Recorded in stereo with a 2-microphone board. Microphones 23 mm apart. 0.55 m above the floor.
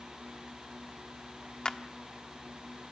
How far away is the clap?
About 1.2 m.